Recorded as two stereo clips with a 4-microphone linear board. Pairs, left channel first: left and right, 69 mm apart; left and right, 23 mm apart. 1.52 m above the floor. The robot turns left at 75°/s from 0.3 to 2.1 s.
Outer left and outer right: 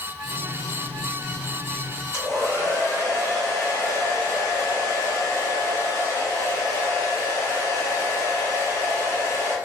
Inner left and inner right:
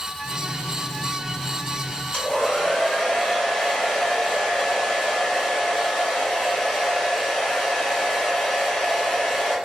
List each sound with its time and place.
2.1 s a hair dryer: 45° left (ahead or behind), 1.7 m